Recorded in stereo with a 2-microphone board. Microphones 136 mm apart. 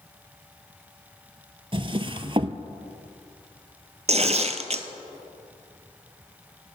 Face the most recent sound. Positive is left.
turn(degrees=-50)  # may be behind; listen again after turning